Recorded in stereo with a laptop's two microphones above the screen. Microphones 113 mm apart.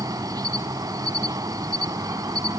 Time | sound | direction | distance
0.0 | an insect | 35° right (ahead or behind) | 1.1 m